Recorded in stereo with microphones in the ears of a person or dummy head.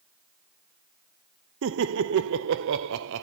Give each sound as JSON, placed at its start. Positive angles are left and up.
{"t": 1.6, "sound": "laughter", "side_deg": -70, "distance_m": 0.5}